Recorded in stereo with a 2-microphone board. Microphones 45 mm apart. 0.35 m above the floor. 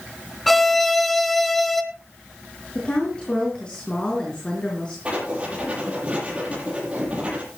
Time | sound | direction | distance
0.5 | a violin | centre (ahead or behind) | 1.5 m
2.8 | a woman speaking | 20° left (ahead or behind) | 4.5 m
5.0 | writing | 25° right (ahead or behind) | 7.5 m